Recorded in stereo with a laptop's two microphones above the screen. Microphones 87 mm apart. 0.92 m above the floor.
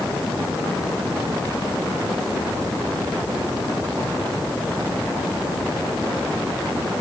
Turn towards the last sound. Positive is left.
No sound to turn to.